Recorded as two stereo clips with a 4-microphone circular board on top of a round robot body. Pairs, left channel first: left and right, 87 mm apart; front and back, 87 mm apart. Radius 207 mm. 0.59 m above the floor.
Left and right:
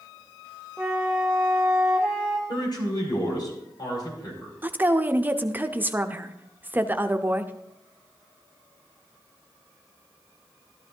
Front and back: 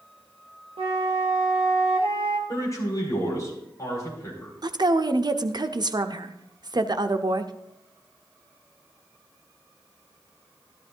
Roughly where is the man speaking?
Ahead left.